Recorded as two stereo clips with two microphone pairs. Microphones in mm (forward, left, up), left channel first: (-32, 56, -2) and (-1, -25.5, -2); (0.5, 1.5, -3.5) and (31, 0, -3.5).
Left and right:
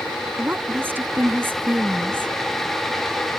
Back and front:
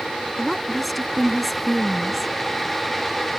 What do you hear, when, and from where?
0.4 s a woman speaking: 95° right